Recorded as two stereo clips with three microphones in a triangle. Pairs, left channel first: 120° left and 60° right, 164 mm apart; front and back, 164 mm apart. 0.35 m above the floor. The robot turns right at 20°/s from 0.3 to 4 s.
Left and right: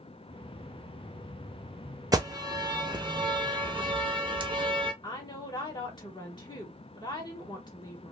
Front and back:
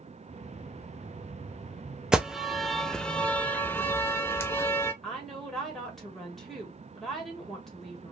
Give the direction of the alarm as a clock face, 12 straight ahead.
3 o'clock.